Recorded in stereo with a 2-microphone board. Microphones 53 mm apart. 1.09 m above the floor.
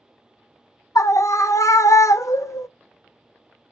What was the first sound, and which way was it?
A scream, 65° left (ahead or behind).